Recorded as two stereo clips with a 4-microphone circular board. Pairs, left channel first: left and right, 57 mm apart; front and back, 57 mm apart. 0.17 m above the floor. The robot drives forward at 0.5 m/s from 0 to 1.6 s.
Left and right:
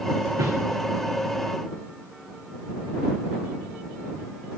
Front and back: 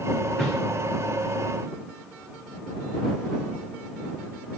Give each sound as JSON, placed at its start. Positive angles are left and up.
{"t": 0.4, "sound": "a whoosh", "azimuth_deg": -85, "distance_m": 4.5}